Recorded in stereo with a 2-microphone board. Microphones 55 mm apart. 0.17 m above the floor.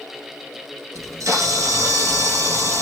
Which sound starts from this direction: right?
A camera shutter, at 0.9 s.